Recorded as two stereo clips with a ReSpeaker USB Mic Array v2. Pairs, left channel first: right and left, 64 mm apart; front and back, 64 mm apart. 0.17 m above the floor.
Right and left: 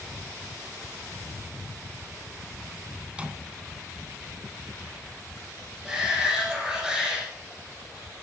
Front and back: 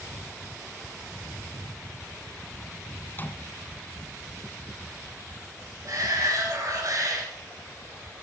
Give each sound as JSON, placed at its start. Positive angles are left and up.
{"t": 3.1, "sound": "a microwave", "azimuth_deg": 30, "distance_m": 1.3}
{"t": 5.8, "sound": "a shout", "azimuth_deg": 170, "distance_m": 3.0}